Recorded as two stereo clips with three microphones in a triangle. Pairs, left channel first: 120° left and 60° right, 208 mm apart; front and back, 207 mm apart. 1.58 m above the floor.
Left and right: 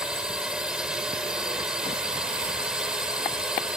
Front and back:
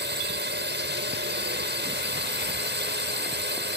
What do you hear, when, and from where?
0.0 s a drone: 145° right